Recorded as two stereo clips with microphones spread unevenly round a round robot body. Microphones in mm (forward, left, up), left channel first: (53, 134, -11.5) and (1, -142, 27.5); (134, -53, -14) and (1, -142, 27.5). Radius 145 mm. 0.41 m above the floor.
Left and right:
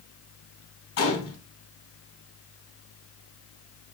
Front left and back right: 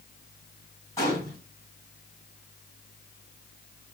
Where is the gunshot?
100° left, 3 m.